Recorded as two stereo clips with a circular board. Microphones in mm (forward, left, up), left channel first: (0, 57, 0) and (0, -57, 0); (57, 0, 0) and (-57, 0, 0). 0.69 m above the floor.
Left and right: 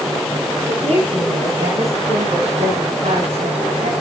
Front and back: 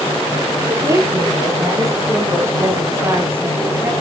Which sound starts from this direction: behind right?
A woman speaking, at 0.7 s.